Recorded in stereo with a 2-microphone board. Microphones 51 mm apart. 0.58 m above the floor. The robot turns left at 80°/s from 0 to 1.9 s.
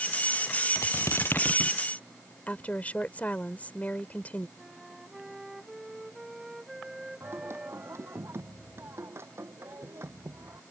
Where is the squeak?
95° left; by 1.8 s 15° left.